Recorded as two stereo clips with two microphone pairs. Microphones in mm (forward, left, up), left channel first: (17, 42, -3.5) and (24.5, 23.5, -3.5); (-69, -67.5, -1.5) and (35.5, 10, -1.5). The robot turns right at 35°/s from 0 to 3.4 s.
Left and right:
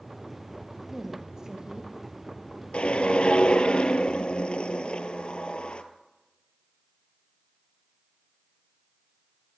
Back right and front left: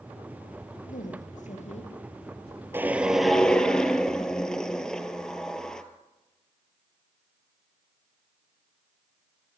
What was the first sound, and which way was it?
A woman speaking, 145° right.